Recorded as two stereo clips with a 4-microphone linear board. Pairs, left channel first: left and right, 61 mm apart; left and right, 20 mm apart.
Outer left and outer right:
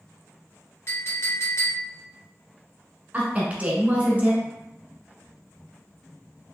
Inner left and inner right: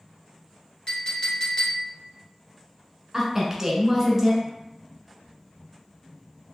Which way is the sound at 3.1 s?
25° right (ahead or behind).